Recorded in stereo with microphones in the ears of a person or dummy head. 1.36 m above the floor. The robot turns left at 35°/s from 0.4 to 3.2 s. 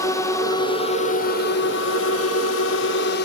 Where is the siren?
I don't hear a siren.